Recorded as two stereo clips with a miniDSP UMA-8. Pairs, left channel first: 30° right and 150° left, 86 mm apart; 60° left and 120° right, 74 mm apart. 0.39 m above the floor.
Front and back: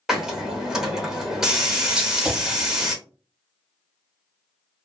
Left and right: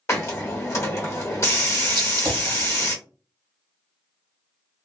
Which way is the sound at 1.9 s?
135° right.